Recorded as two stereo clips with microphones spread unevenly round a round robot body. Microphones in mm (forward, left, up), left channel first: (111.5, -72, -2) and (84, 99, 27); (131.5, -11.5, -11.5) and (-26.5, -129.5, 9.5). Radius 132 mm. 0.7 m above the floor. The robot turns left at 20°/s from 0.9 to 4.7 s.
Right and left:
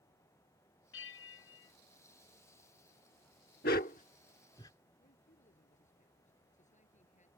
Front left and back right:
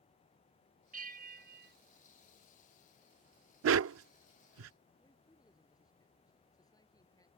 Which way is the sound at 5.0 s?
35° right.